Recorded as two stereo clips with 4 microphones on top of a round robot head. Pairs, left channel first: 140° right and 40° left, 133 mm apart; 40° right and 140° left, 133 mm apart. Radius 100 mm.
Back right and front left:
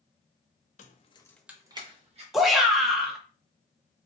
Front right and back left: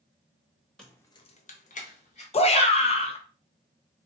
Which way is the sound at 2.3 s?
50° right.